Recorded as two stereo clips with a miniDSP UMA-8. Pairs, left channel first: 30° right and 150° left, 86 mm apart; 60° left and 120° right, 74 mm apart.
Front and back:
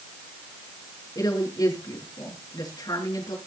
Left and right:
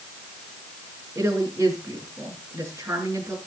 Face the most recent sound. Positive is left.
turn(degrees=-70)